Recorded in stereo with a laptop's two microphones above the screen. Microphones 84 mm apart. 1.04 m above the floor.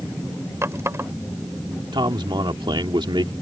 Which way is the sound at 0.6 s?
35° right (ahead or behind).